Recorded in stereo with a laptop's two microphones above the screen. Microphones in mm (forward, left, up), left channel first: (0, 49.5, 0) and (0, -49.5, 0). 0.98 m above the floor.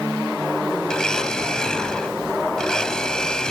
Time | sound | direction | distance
0.9 | a blender | 5° left (ahead or behind) | ?